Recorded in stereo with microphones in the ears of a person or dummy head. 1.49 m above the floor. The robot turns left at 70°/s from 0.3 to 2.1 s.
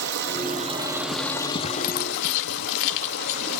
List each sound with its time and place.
0.0 s running water: 110° right, 1.6 m; by 3.6 s 120° left, 1.6 m
1.8 s keys jangling: 60° left (ahead or behind), 1.3 m